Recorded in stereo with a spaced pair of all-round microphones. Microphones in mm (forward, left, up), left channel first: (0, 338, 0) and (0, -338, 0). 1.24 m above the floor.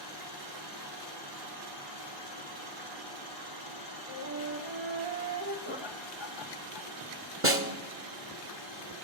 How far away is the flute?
About 2 m.